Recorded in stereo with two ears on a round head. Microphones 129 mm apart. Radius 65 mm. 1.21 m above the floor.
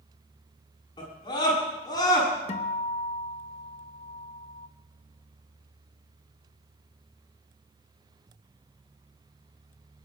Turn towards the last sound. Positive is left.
turn(degrees=45)  # may be behind; listen again after turning